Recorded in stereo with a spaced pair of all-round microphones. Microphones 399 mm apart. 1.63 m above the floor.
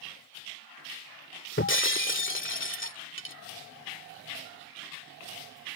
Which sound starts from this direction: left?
Breaking glass, at 1.6 s.